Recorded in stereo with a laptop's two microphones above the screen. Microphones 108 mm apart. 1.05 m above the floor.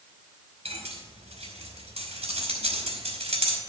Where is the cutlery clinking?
70° right (ahead or behind), 3 m.